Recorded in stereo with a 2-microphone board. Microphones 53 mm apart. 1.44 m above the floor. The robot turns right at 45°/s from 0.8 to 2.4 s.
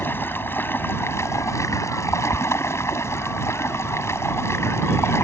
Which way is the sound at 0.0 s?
45° left.